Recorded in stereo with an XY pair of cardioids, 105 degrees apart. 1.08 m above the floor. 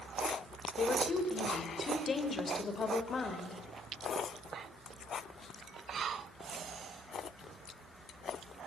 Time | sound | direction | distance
0.8 | a woman speaking | 45° left | 4.5 m